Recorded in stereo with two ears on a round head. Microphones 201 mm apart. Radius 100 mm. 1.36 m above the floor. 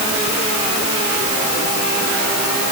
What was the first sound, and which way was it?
Only background noise.